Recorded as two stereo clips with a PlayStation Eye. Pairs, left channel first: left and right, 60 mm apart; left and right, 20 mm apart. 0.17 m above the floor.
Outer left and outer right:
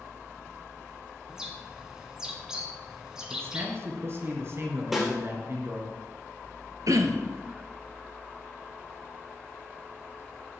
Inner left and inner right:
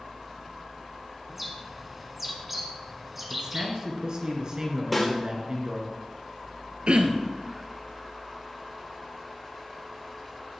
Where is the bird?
10° right (ahead or behind), 1.7 m.